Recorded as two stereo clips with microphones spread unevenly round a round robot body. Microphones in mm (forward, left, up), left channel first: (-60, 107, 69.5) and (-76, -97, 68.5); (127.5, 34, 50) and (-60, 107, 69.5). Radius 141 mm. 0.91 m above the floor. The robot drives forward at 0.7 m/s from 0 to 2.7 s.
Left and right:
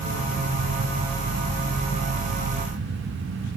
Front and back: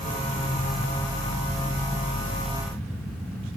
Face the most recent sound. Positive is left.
No sound to turn to.